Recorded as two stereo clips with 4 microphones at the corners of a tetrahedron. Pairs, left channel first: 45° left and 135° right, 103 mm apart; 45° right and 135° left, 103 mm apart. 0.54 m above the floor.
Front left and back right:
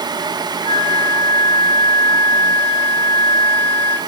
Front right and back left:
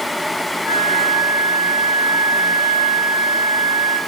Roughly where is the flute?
Ahead left.